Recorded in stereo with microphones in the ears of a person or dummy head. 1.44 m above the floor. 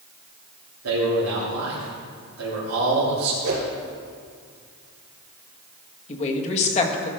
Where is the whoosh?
70° right (ahead or behind), 3.5 m.